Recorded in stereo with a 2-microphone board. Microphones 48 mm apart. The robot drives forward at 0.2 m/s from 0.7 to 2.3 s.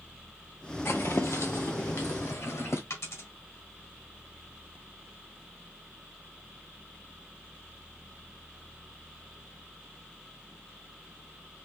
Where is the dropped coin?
80° left, 2.0 m.